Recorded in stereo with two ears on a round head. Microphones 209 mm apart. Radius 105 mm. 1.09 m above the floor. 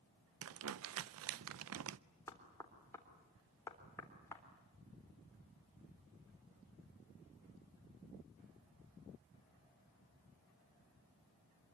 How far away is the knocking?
About 3.5 m.